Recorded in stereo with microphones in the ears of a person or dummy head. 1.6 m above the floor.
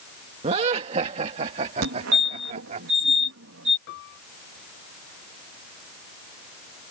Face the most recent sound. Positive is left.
turn(degrees=60)  # may be behind; listen again after turning